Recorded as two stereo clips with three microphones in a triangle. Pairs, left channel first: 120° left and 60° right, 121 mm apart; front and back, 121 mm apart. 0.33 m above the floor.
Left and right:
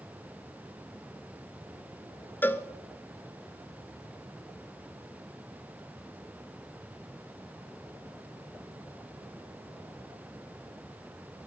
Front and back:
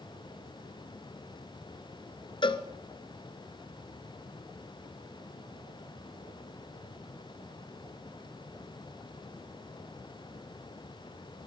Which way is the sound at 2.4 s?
45° left.